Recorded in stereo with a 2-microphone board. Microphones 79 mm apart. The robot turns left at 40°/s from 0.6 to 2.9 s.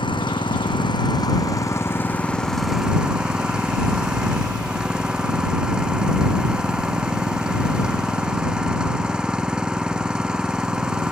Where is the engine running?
80° left; by 11.1 s 10° right.